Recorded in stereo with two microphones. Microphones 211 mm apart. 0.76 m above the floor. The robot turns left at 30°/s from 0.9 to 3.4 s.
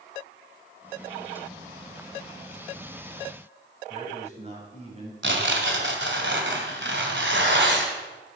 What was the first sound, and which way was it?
A man speaking, 30° right (ahead or behind).